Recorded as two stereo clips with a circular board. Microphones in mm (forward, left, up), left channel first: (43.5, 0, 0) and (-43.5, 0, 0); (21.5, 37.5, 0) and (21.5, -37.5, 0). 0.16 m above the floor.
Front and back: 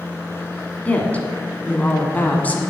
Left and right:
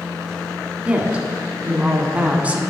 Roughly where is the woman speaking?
Ahead right.